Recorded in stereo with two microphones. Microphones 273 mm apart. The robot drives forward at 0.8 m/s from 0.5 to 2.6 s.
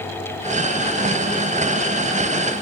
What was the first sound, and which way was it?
Only background noise.